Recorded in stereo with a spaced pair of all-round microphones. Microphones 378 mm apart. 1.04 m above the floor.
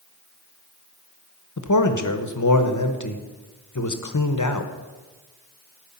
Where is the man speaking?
50° left (ahead or behind), 1.0 m.